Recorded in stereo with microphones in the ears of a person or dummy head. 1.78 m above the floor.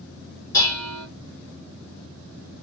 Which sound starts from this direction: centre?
Dishes clattering, at 0.5 s.